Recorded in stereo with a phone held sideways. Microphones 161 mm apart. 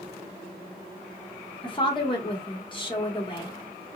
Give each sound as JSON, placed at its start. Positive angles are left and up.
{"t": 1.6, "sound": "a woman speaking", "side_deg": 30, "distance_m": 1.3}